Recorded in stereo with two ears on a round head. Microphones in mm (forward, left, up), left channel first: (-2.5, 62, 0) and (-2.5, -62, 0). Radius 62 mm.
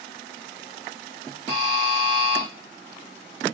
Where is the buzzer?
40° right (ahead or behind), 2.5 m.